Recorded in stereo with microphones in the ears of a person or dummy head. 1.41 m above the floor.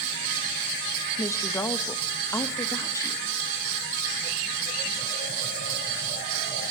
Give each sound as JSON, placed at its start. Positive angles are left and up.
{"t": 1.2, "sound": "a woman speaking", "side_deg": 10, "distance_m": 1.5}